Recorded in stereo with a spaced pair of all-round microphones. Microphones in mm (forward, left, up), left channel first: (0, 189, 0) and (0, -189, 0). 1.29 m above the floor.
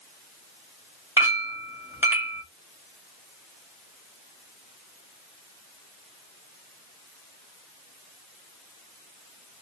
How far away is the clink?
About 1.7 m.